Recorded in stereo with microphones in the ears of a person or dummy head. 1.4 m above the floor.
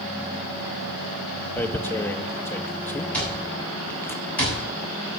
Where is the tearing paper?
10° left (ahead or behind), 0.7 m.